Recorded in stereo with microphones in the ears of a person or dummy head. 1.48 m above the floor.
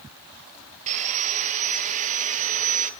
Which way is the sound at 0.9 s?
40° right (ahead or behind).